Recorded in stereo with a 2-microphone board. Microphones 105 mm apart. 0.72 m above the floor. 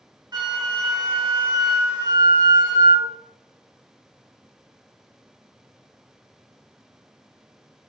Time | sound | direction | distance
0.3 | a flute | 45° right (ahead or behind) | 0.7 m